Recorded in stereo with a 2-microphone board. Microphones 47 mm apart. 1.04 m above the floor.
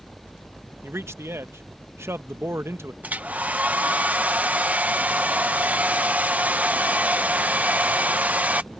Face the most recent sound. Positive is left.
turn(degrees=-30)  # may be behind; listen again after turning